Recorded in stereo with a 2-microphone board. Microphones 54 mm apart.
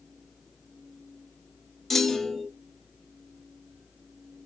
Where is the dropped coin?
No dropped coin in this recording.